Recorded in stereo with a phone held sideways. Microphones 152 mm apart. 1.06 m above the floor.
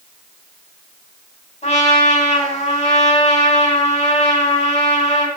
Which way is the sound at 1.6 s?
45° left (ahead or behind).